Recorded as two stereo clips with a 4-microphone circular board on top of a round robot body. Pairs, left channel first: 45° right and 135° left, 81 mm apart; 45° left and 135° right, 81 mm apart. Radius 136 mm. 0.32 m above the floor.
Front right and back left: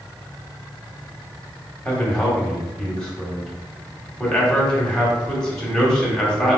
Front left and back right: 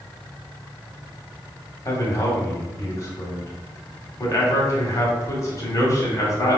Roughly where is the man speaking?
Ahead left.